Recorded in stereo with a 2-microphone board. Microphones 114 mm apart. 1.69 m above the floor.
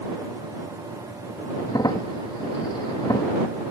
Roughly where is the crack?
Left.